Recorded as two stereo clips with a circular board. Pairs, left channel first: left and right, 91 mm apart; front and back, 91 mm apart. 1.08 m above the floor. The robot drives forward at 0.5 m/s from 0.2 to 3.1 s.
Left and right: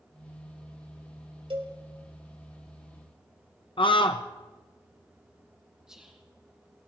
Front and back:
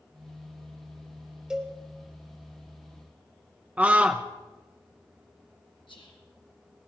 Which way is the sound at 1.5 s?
100° right.